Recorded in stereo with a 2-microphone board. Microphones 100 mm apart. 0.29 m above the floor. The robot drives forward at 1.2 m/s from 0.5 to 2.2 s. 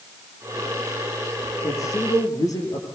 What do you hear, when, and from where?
1.6 s a man speaking: 35° left (ahead or behind), 7 m